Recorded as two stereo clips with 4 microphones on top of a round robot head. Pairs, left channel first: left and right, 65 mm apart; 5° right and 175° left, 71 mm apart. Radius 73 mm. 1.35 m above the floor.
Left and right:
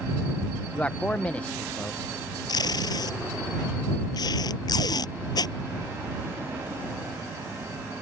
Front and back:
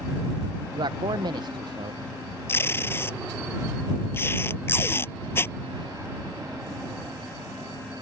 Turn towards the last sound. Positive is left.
turn(degrees=55)